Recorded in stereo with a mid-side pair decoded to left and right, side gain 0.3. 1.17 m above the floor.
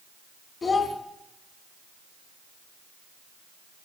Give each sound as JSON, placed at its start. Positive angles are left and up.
{"t": 0.6, "sound": "a child speaking", "azimuth_deg": 55, "distance_m": 1.8}